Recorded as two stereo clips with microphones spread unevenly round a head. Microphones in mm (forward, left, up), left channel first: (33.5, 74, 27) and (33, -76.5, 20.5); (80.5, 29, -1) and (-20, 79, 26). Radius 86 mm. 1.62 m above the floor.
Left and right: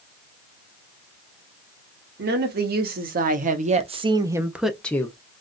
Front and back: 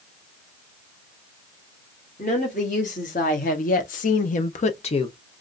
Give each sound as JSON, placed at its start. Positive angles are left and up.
{"t": 2.2, "sound": "a woman speaking", "azimuth_deg": -75, "distance_m": 1.4}